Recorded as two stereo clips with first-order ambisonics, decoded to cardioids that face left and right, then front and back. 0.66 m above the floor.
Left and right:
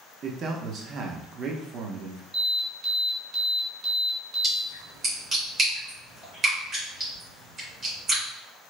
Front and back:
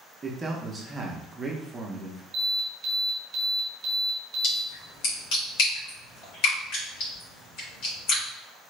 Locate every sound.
0.2 s a man speaking: 115° right, 0.5 m
2.3 s an alarm: 165° right, 1.6 m
4.4 s a splash: 30° right, 2 m